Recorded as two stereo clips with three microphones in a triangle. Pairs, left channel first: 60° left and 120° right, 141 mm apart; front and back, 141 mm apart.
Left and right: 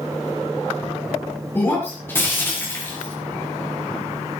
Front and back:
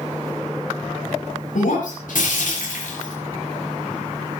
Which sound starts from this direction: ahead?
Breaking glass, at 1.6 s.